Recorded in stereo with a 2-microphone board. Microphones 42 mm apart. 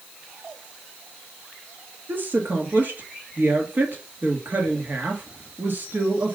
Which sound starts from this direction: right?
A woman speaking, at 2.1 s.